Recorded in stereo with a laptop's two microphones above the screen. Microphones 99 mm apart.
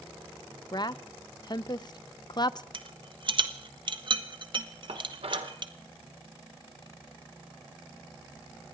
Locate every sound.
0.7 s a woman speaking: 45° left (ahead or behind), 0.6 m
2.7 s a rattle: 50° right (ahead or behind), 1.2 m
4.9 s dishes clattering: 75° right (ahead or behind), 2 m